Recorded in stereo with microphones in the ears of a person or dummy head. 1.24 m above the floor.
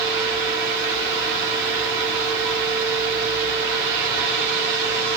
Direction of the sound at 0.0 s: 60° right (ahead or behind).